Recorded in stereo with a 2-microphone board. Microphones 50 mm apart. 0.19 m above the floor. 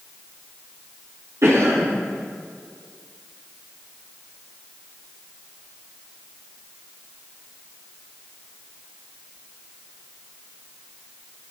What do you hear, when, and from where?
1.4 s a cough: 65° right (ahead or behind), 6.5 m